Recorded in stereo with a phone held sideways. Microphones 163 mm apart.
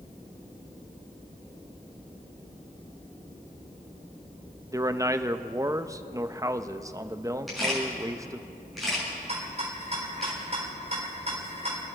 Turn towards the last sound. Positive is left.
turn(degrees=-45)  # may be behind; listen again after turning